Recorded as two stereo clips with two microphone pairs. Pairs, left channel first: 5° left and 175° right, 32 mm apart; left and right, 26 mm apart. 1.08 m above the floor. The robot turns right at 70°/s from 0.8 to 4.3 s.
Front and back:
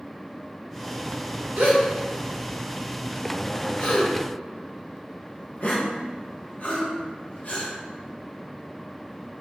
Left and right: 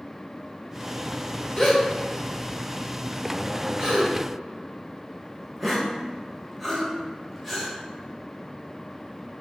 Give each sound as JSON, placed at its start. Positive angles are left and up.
{"t": 1.6, "sound": "a gasp", "azimuth_deg": 170, "distance_m": 1.3}